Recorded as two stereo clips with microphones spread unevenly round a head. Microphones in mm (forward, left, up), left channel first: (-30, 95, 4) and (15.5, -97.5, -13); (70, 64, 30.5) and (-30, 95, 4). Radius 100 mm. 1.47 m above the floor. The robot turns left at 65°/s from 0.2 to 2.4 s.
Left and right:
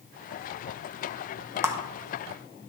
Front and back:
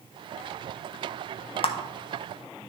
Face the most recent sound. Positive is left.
turn(degrees=-45)